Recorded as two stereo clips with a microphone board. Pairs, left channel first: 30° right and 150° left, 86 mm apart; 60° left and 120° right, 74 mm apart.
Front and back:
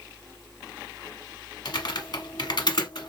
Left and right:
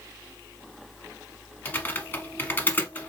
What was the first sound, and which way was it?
Typing on a keyboard, 5° right.